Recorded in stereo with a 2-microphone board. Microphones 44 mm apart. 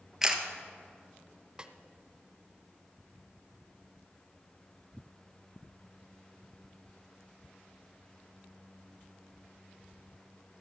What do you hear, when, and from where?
0.2 s a camera shutter: 10° right (ahead or behind), 1.1 m
1.6 s a snare drum: 20° right (ahead or behind), 0.7 m